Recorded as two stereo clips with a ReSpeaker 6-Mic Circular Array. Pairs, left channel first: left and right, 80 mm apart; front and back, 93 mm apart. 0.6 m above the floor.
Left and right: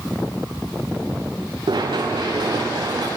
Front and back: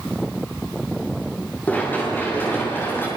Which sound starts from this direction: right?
Running footsteps, at 1.7 s.